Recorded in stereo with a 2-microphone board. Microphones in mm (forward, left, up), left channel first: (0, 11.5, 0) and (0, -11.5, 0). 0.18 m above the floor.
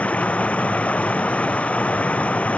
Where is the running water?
70° left (ahead or behind).